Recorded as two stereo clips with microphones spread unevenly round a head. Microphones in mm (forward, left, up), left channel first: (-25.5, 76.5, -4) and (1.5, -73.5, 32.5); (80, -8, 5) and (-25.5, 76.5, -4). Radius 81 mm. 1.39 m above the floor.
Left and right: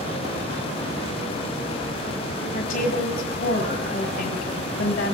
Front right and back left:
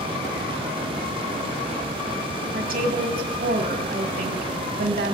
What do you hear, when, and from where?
2.5 s a woman speaking: 125° left, 1.5 m